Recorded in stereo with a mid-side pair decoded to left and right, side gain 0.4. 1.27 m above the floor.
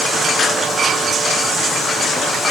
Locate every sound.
Only background noise.